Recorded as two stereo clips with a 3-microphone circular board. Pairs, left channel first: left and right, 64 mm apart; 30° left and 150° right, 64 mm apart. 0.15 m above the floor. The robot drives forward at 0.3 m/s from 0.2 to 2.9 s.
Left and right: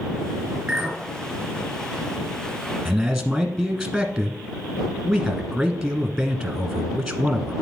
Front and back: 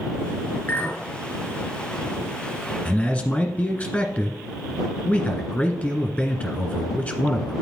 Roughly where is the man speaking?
Ahead.